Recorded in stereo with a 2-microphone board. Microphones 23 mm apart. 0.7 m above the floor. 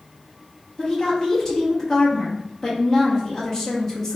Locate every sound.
0.8 s a woman speaking: 20° left (ahead or behind), 0.7 m